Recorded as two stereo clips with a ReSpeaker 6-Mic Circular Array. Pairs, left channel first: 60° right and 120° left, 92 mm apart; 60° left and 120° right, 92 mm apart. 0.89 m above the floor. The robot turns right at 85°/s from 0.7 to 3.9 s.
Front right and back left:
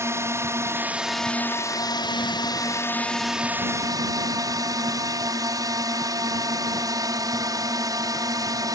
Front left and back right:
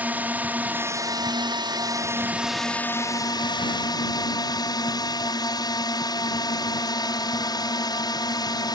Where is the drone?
175° left; by 8.8 s 85° left.